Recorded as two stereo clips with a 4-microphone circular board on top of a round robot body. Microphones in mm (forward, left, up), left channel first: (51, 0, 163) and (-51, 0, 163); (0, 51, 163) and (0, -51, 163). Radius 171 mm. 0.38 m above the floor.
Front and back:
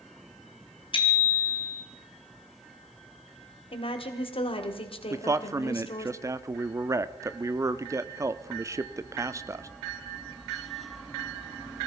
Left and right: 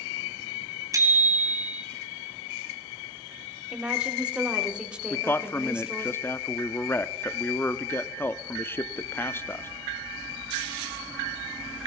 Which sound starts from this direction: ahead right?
A bicycle bell, at 0.9 s.